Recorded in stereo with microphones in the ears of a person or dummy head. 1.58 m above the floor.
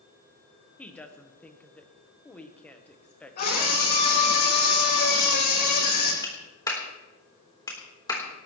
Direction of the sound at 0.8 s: 10° left (ahead or behind).